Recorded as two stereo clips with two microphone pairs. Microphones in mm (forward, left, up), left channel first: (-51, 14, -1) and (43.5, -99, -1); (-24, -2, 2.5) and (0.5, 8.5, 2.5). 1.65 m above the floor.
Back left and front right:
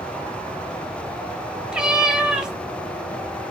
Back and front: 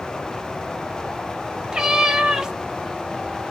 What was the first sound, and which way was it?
A cat meowing, 25° left.